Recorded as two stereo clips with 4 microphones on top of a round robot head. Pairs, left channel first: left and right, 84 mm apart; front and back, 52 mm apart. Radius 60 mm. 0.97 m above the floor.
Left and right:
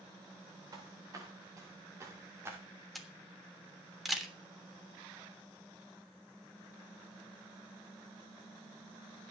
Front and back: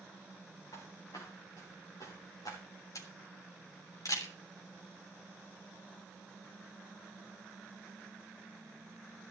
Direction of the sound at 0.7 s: 45° right.